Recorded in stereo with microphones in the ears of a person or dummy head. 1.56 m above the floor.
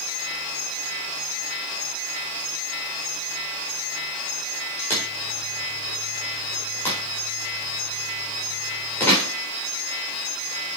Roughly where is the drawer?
Centre.